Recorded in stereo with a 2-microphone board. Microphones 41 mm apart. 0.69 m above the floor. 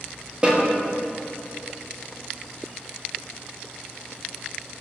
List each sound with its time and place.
0.4 s a snare drum: 20° right (ahead or behind), 0.8 m